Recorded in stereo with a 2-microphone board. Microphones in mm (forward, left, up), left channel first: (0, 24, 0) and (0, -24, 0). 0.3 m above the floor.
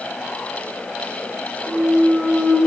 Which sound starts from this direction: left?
A clunk, at 1.6 s.